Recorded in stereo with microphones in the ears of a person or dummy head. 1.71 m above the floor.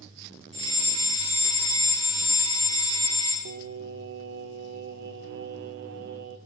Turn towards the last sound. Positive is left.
turn(degrees=-45)  # may be behind; listen again after turning